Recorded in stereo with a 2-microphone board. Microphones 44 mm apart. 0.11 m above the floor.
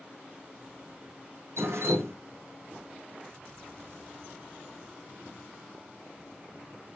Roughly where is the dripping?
Right.